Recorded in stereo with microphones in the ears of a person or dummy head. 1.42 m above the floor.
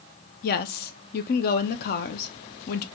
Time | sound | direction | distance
0.4 | a woman speaking | 45° left (ahead or behind) | 0.5 m